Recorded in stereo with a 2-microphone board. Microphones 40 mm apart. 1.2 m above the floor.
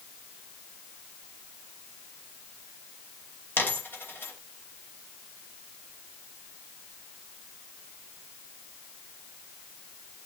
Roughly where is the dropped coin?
Left.